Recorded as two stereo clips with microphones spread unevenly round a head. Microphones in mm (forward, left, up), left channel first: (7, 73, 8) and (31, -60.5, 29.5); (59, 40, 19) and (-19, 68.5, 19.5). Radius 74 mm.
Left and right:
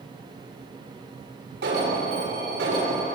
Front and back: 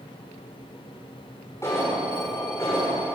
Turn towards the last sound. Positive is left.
turn(degrees=-90)